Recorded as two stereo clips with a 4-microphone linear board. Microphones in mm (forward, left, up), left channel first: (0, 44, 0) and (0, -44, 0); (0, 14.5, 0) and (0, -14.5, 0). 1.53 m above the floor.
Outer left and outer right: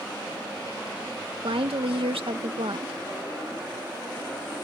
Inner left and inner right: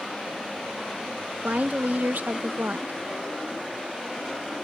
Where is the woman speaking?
85° right.